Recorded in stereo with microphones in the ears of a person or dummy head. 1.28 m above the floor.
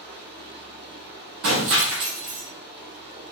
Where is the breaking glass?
55° right (ahead or behind), 1.3 m.